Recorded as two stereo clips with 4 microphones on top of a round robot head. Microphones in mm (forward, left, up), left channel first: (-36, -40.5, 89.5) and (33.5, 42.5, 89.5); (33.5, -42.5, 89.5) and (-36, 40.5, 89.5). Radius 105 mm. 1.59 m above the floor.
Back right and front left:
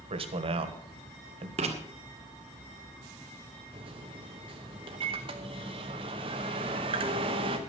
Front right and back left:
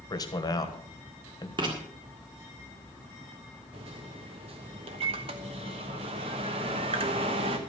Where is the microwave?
90° left, 1.0 m.